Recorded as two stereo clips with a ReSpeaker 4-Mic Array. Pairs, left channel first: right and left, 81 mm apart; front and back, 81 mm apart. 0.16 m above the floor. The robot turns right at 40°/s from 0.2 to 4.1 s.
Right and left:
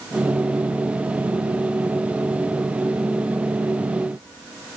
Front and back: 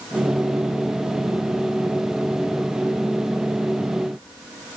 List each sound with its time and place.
Only background noise.